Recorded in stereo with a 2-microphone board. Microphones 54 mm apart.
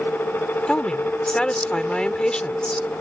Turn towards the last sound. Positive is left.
turn(degrees=15)  # may be behind; listen again after turning